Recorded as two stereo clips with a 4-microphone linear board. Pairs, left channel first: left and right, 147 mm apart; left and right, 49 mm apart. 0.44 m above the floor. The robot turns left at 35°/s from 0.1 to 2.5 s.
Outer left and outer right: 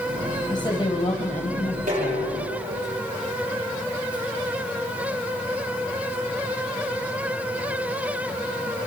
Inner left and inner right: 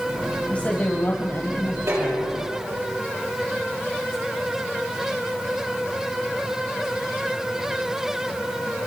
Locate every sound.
0.5 s a woman speaking: 150° left, 2.5 m; by 2.3 s 85° left, 2.5 m
1.9 s dishes clattering: 75° right (ahead or behind), 9.5 m; by 2.8 s 50° right (ahead or behind), 9.5 m